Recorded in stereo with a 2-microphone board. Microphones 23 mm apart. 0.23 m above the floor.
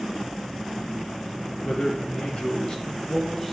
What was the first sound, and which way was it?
A man speaking, 50° left (ahead or behind).